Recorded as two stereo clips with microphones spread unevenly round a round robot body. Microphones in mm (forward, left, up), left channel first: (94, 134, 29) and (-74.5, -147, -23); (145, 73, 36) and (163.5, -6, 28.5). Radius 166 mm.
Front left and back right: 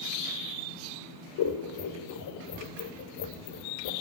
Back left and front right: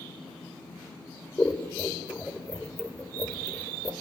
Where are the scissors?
25° left, 1.7 m.